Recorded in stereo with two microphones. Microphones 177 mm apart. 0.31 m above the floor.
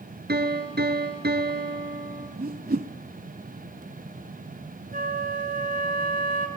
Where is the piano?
70° right (ahead or behind), 1.8 m.